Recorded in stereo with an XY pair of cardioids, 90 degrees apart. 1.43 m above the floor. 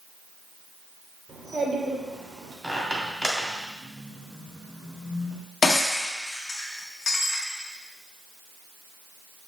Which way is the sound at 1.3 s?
40° right.